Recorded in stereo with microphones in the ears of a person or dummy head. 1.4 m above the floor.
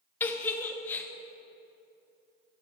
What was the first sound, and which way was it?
A giggle, 15° left (ahead or behind).